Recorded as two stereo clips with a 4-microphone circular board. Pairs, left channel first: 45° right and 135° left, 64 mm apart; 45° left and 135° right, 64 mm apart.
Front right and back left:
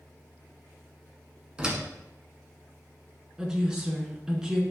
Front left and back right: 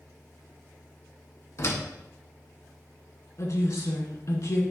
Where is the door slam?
65° left, 1.6 m.